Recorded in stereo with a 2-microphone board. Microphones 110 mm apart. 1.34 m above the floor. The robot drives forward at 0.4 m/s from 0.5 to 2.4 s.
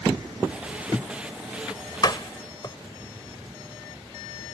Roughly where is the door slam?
Left.